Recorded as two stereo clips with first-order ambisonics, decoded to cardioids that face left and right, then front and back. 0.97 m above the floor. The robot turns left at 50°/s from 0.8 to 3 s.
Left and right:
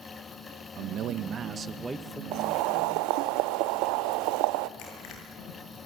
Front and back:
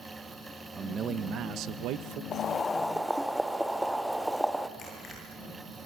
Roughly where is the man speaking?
Right.